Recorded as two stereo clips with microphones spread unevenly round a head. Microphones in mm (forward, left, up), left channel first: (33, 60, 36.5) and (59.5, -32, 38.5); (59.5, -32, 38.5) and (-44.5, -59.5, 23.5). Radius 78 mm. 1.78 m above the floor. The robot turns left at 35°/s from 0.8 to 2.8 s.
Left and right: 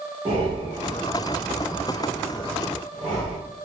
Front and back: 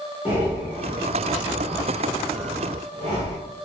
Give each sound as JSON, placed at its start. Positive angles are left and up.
{"t": 0.2, "sound": "breathing", "azimuth_deg": -95, "distance_m": 1.7}